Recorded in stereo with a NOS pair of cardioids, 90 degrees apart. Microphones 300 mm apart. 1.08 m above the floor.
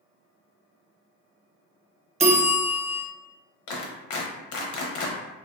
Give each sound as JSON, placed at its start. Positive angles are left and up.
{"t": 2.2, "sound": "a bell", "azimuth_deg": -25, "distance_m": 0.7}
{"t": 3.7, "sound": "a clap", "azimuth_deg": 70, "distance_m": 0.8}